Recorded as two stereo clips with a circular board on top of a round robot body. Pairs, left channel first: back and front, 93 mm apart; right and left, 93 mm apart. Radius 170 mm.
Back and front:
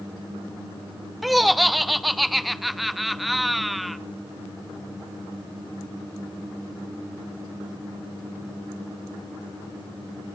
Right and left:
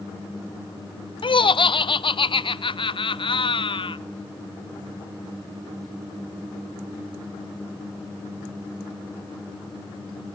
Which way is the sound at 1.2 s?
90° right.